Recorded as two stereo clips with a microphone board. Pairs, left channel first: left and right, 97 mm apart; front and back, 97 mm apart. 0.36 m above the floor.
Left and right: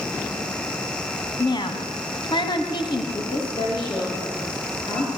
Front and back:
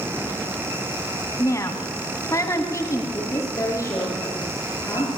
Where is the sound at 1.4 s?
55° left, 3 m.